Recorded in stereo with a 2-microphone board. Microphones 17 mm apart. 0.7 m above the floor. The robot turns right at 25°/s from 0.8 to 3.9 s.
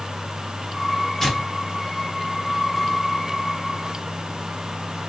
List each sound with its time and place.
1.2 s tearing paper: 15° left (ahead or behind), 0.9 m; by 3.0 s 55° left (ahead or behind), 0.9 m